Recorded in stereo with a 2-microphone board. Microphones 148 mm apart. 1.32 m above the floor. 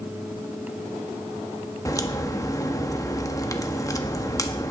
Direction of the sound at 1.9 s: 25° left (ahead or behind).